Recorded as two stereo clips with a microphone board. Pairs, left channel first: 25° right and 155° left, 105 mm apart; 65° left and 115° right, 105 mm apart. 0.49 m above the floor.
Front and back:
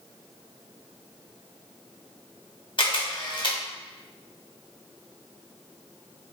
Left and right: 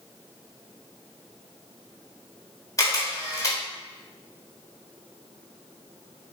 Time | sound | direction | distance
2.8 | a camera shutter | 15° left | 0.9 m